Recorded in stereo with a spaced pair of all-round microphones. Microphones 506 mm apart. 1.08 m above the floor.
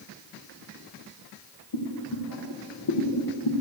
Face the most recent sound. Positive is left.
turn(degrees=55)  # may be behind; listen again after turning